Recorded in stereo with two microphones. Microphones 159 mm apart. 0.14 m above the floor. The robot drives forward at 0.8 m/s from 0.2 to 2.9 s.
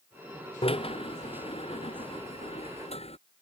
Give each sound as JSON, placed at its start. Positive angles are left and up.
{"t": 0.6, "sound": "a drill", "side_deg": 35}